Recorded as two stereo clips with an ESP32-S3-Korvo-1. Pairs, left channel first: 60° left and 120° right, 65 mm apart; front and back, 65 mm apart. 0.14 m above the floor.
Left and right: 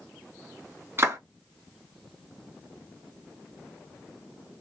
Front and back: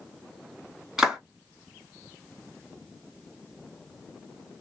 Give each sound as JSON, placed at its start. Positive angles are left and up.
{"t": 1.0, "sound": "a clap", "azimuth_deg": -100, "distance_m": 1.7}